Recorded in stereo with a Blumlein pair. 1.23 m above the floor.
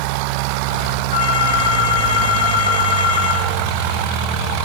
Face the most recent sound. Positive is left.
turn(degrees=60)